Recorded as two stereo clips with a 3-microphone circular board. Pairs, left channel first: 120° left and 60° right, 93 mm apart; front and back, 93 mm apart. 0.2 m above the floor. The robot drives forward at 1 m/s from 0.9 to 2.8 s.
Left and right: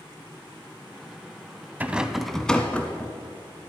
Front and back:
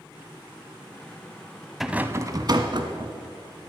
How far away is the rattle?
About 0.6 m.